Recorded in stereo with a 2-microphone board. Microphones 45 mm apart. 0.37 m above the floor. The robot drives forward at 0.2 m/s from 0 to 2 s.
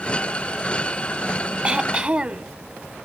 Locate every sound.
1.6 s throat clearing: 20° right (ahead or behind), 0.8 m